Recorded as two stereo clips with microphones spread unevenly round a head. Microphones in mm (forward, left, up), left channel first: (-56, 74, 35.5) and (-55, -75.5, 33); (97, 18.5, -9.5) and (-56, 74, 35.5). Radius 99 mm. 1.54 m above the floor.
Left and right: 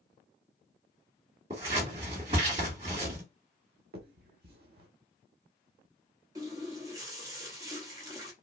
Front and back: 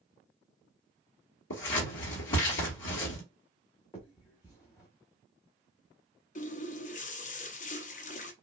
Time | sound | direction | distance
1.5 | scissors | 30° right | 2.5 m
3.9 | a finger snap | 100° right | 1.2 m
6.3 | a running tap | 35° right | 0.6 m